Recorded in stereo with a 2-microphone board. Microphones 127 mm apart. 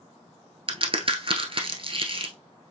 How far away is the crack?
About 1.0 m.